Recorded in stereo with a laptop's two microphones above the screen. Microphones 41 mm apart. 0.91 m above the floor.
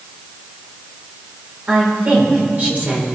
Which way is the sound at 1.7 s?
40° right (ahead or behind).